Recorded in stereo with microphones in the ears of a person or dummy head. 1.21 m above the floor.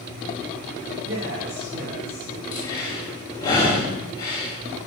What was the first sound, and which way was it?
A man speaking, 70° right (ahead or behind).